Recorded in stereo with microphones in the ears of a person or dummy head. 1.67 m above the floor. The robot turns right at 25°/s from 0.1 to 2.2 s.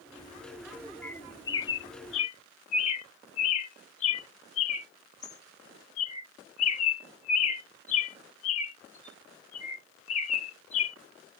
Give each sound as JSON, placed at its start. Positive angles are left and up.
{"t": 1.0, "sound": "a bird", "side_deg": 10}